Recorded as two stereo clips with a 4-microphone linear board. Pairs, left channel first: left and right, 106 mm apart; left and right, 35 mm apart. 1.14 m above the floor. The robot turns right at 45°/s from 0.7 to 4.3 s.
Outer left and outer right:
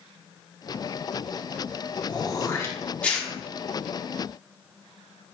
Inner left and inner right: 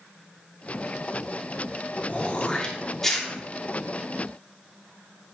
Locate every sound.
2.1 s throat clearing: 40° left (ahead or behind), 0.6 m; by 3.3 s centre (ahead or behind), 0.6 m